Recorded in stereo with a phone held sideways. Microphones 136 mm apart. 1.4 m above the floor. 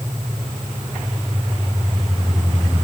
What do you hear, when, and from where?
Only background noise.